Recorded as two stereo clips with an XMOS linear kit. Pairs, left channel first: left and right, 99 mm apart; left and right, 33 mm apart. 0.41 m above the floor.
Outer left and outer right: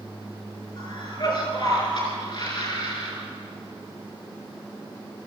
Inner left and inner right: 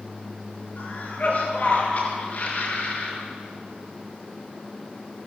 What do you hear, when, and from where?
0.8 s a cough: 55° left (ahead or behind), 6 m